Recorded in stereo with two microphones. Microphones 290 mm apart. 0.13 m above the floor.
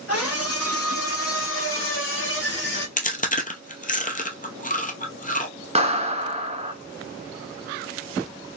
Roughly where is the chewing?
Left.